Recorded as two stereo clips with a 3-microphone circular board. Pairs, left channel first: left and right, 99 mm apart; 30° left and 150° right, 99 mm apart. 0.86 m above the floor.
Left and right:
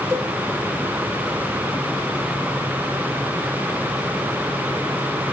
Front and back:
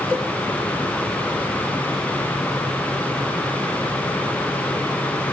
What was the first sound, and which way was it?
A cowbell, 175° right.